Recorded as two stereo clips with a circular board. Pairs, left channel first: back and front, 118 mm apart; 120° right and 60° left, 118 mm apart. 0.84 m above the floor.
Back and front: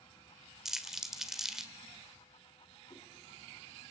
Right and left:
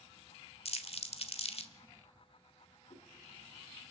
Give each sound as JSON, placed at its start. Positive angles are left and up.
{"t": 0.7, "sound": "crumpling", "azimuth_deg": -85, "distance_m": 1.4}
{"t": 2.9, "sound": "a whoosh", "azimuth_deg": -130, "distance_m": 2.5}